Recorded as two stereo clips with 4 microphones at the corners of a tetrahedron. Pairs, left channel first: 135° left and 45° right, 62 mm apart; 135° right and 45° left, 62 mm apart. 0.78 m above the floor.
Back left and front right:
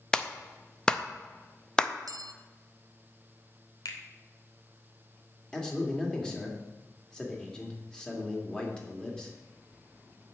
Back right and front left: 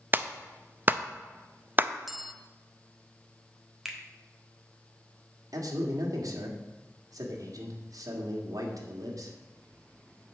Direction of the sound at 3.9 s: 130° left.